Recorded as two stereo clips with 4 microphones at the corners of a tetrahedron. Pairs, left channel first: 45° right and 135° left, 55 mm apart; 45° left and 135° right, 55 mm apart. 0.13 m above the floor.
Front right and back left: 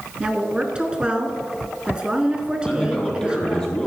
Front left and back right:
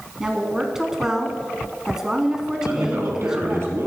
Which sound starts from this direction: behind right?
A man speaking, at 2.7 s.